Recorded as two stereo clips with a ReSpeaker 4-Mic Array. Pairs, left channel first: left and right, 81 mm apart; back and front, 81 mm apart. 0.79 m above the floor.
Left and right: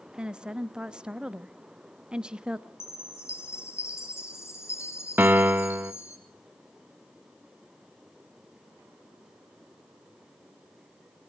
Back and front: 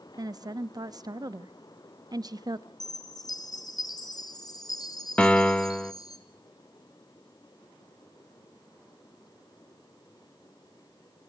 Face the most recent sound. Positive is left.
turn(degrees=-125)